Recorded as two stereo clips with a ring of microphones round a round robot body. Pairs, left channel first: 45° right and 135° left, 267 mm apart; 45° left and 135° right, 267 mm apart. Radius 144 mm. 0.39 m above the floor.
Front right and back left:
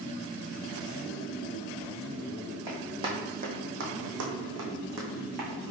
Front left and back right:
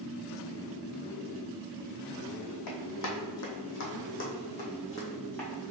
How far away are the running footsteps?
About 1.3 m.